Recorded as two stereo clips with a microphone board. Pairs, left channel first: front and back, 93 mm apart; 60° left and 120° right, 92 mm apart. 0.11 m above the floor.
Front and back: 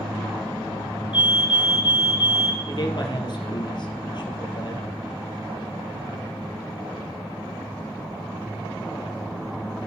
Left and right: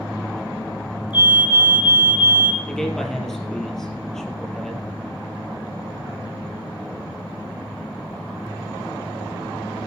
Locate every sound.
1.1 s a fire alarm: 25° left, 5 m
2.7 s a man speaking: 25° right, 3 m